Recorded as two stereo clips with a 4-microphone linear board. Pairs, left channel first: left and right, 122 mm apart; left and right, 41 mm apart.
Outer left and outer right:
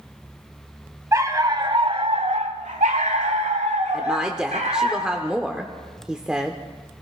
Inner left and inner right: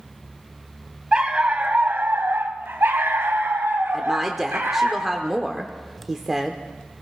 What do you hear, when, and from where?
1.1 s a dog barking: 25° right (ahead or behind), 1.0 m; by 4.9 s 70° right (ahead or behind), 2.0 m
3.9 s a woman speaking: 5° right (ahead or behind), 0.8 m